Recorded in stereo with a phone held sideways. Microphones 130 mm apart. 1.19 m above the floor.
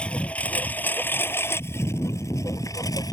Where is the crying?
No crying in this recording.